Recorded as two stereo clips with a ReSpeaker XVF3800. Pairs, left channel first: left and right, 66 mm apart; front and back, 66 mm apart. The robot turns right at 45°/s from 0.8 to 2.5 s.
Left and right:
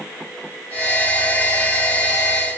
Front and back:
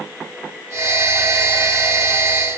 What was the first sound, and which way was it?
Only background noise.